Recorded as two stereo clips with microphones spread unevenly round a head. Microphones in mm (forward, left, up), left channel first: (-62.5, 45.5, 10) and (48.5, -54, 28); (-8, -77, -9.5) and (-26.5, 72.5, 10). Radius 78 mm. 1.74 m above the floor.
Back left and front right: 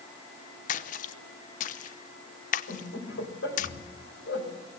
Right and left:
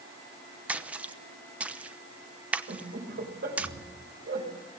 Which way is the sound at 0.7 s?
170° left.